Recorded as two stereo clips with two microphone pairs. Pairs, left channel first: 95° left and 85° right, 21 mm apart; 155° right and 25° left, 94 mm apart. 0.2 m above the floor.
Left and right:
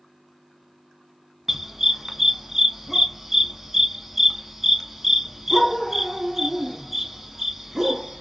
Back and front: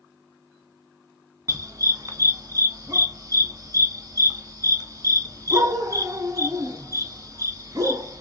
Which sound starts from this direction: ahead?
A dog barking, at 1.5 s.